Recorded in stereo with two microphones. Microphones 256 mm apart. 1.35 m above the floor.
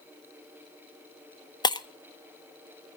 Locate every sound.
1.6 s breaking glass: 15° left (ahead or behind), 0.5 m